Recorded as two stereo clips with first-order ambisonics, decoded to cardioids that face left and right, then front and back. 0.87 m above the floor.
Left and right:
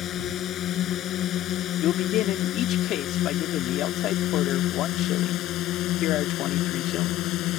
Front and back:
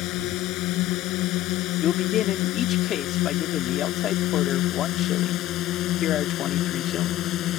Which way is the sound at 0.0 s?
35° left.